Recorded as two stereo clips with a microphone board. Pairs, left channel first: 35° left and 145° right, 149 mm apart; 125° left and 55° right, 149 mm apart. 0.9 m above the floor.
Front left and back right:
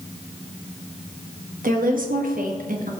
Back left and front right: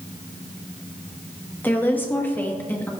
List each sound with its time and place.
1.6 s a woman speaking: 160° right, 1.2 m